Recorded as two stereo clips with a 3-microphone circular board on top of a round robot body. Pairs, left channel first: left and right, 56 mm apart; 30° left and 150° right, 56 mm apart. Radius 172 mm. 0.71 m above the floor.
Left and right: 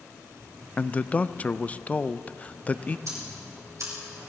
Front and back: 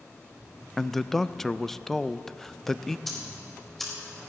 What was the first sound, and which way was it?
A man speaking, 105° left.